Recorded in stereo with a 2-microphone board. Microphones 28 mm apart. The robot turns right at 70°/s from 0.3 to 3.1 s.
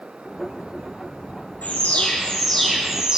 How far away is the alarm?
About 7.5 m.